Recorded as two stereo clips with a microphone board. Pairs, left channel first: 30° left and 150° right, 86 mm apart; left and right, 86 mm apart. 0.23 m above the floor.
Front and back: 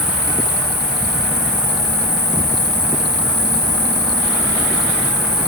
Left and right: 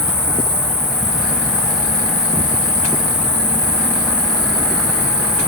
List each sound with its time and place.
0.0 s an insect: 80° right, 3 m